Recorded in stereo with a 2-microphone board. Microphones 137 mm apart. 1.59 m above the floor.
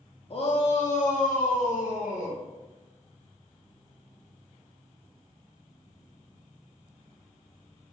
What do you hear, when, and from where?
0.3 s a shout: 40° left (ahead or behind), 0.5 m; by 2.4 s 65° left (ahead or behind), 1.4 m